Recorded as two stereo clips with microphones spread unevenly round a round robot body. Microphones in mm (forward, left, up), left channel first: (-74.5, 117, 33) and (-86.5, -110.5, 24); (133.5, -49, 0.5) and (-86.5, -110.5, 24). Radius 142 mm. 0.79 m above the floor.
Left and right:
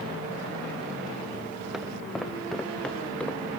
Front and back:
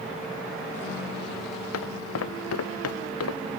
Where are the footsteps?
5° right; by 3.4 s straight ahead.